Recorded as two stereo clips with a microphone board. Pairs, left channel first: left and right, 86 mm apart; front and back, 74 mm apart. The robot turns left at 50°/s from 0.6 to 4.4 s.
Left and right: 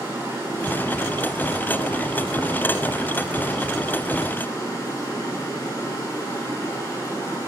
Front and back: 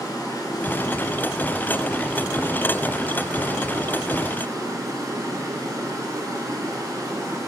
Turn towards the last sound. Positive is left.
turn(degrees=140)